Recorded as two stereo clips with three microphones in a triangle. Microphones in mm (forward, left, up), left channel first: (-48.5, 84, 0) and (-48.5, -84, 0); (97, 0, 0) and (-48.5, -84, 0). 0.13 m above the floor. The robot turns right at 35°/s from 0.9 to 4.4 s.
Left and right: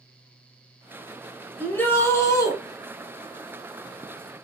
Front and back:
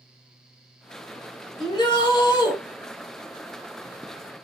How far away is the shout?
About 1.2 m.